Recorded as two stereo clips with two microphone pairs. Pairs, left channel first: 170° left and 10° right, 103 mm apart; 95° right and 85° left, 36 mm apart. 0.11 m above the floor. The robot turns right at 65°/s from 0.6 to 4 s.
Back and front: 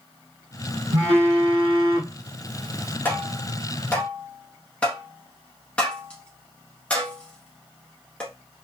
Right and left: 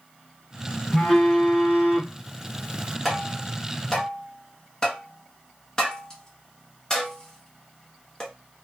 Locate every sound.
0.9 s a phone buzzing: 25° right, 1.1 m; by 3.0 s 105° left, 1.1 m
3.0 s tapping: 165° left, 1.0 m; by 8.3 s 135° right, 1.0 m